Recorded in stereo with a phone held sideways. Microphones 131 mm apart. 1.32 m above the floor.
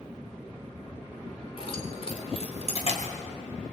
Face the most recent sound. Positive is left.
turn(degrees=55)  # may be behind; listen again after turning